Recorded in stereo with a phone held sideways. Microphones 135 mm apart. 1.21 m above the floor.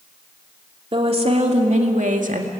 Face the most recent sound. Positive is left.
turn(degrees=-85)